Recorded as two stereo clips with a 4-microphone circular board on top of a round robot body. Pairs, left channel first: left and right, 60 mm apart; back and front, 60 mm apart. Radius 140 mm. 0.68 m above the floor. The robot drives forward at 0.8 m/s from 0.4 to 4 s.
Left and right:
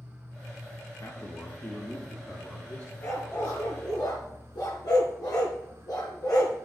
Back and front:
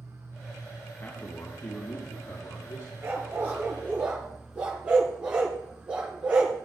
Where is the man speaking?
120° left, 1.4 m; by 2.9 s 155° left, 2.5 m.